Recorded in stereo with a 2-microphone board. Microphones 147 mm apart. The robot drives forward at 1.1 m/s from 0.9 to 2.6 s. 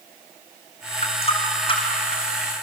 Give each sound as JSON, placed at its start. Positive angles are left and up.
{"t": 1.0, "sound": "a running tap", "side_deg": 45, "distance_m": 3.5}